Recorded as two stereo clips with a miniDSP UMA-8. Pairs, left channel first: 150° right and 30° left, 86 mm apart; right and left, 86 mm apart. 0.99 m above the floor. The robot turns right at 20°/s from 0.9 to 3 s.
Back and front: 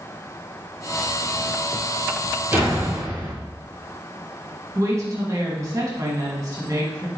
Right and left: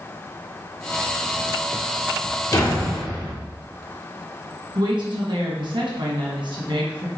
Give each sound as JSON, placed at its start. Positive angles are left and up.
{"t": 2.5, "sound": "a door slam", "azimuth_deg": -40, "distance_m": 1.4}
{"t": 4.8, "sound": "a woman speaking", "azimuth_deg": 80, "distance_m": 1.5}